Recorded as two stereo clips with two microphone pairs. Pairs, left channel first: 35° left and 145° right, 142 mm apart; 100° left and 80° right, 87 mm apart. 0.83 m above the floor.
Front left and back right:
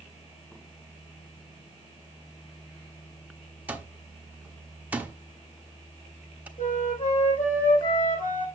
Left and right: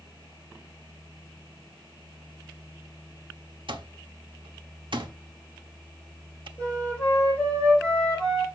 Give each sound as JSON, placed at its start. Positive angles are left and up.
{"t": 3.7, "sound": "an alarm clock", "azimuth_deg": -65, "distance_m": 1.1}
{"t": 6.6, "sound": "a flute", "azimuth_deg": 25, "distance_m": 4.0}